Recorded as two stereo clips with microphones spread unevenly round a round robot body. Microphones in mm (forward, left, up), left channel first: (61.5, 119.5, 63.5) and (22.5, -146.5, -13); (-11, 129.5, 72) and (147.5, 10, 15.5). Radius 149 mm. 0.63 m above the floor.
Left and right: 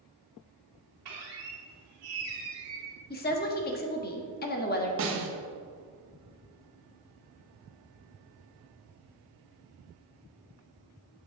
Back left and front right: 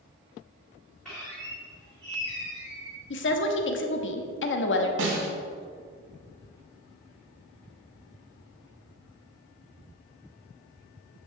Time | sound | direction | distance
1.1 | a squeak | 125° right | 3 m
3.1 | a woman speaking | 145° left | 1.1 m
5.0 | a snare drum | 60° right | 1.8 m